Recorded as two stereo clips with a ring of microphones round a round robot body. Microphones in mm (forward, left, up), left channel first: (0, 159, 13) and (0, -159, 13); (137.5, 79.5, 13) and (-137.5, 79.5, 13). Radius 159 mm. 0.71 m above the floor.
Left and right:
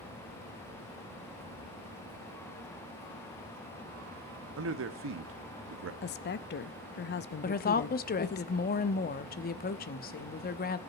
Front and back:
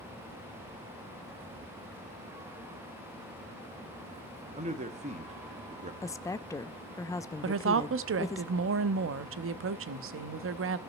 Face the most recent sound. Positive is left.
turn(degrees=150)